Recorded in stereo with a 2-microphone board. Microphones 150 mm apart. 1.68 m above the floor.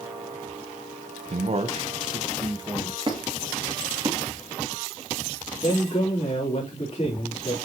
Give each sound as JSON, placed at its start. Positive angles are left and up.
{"t": 1.3, "sound": "a man speaking", "side_deg": -50, "distance_m": 0.9}
{"t": 3.1, "sound": "a squeak", "side_deg": -35, "distance_m": 2.0}
{"t": 5.6, "sound": "a man speaking", "side_deg": 45, "distance_m": 3.5}